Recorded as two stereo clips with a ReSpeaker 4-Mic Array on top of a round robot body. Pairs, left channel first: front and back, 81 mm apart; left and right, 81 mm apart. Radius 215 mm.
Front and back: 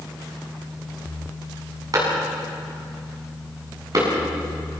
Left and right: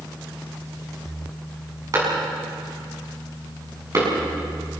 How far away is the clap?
About 8 m.